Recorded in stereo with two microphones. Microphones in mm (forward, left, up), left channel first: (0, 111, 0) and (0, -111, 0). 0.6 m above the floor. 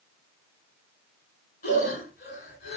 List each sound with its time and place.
1.6 s breathing: 45° left (ahead or behind), 1.4 m